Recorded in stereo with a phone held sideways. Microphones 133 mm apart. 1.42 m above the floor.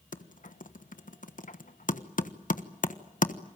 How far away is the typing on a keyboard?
About 1.2 m.